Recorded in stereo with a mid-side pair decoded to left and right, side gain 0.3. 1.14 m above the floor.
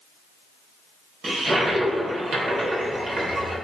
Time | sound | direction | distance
1.2 | a toilet flushing | 70° right | 3.5 m